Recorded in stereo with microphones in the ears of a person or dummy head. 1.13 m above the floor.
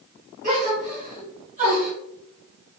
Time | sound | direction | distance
0.4 | a gasp | 30° right (ahead or behind) | 1.3 m